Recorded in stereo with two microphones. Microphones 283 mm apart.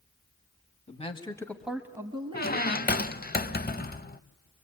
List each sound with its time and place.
0.9 s a man speaking: 25° left (ahead or behind), 1.5 m; by 3.1 s 30° right (ahead or behind), 2.5 m
2.3 s a squeak: 35° left (ahead or behind), 0.5 m